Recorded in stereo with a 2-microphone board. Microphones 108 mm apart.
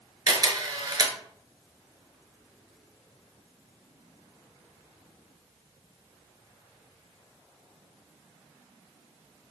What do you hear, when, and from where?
0.3 s a camera shutter: 40° right (ahead or behind), 0.5 m